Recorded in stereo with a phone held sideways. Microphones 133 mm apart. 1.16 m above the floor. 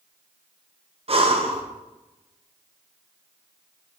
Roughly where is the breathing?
Right.